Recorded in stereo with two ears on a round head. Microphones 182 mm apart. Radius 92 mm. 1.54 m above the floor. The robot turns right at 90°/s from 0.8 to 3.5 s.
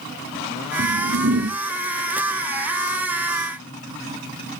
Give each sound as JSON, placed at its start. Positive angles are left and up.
{"t": 0.8, "sound": "a whoosh", "azimuth_deg": -105, "distance_m": 1.6}